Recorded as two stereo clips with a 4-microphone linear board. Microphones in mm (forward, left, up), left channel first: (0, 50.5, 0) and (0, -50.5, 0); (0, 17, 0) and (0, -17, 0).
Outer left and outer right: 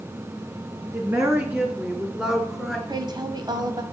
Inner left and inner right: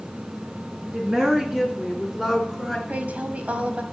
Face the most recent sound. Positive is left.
turn(degrees=-45)  # may be behind; listen again after turning